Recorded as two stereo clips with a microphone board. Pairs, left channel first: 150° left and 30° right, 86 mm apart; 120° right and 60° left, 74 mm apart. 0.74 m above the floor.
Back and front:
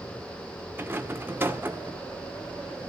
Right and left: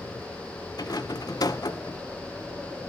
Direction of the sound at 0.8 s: 95° right.